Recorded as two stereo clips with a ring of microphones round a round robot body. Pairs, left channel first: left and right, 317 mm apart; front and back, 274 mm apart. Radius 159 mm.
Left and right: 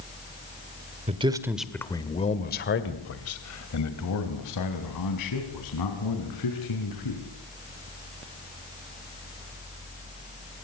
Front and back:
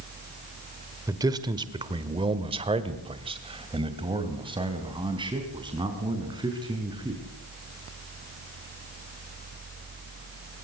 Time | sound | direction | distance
1.1 | a man speaking | 120° right | 1.4 m